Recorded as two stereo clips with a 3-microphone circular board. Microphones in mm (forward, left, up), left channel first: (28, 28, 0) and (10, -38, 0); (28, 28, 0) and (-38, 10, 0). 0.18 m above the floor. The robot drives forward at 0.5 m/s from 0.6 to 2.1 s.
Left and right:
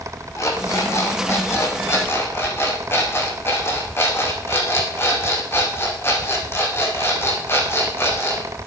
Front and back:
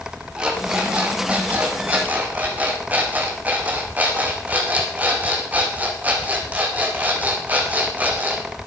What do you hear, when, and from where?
0.4 s an alarm clock: 120° left, 3.5 m; by 8.4 s 130° left, 4 m